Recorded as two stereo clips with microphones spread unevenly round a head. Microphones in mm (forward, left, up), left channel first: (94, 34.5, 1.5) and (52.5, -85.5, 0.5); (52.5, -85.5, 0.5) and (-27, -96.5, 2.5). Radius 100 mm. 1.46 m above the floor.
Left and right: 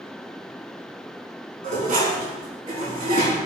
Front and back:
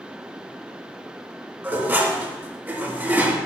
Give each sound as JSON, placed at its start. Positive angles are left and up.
{"t": 1.6, "sound": "dishes clattering", "azimuth_deg": -105, "distance_m": 2.5}